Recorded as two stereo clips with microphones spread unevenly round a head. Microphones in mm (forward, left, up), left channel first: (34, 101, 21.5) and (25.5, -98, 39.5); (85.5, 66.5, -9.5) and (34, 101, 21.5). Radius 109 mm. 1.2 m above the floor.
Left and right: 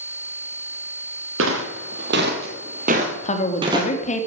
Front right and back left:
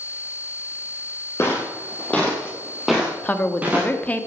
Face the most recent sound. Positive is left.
turn(degrees=30)